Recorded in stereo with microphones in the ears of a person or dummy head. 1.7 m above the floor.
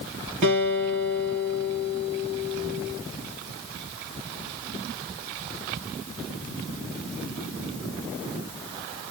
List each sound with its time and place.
0.4 s a guitar: 40° right (ahead or behind), 2.5 m